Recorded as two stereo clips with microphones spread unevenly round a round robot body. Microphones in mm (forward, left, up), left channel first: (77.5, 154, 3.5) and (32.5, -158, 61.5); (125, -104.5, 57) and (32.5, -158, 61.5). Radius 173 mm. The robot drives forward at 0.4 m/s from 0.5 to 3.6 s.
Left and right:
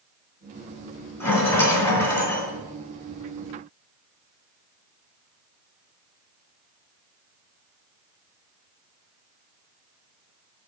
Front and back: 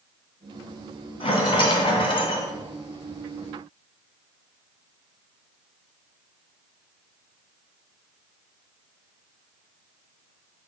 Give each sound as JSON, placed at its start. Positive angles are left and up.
{"t": 1.2, "sound": "a rattle", "azimuth_deg": -5, "distance_m": 2.5}